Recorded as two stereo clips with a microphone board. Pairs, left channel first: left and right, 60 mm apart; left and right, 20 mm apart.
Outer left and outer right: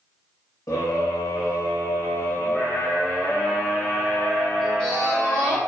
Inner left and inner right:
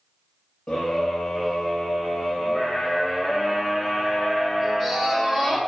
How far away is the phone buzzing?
I don't hear a phone buzzing.